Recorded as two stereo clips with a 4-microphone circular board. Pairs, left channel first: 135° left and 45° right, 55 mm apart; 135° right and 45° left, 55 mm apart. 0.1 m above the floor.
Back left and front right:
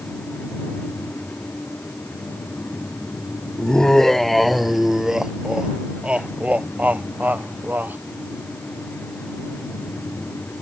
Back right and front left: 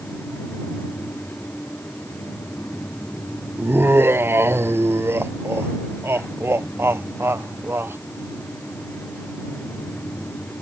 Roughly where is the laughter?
Ahead left.